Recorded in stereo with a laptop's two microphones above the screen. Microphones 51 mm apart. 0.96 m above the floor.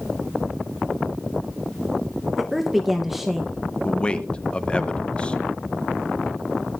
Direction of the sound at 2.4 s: 5° right (ahead or behind).